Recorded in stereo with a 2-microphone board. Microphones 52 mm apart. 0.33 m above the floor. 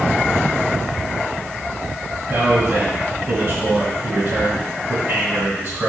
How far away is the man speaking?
About 1.9 m.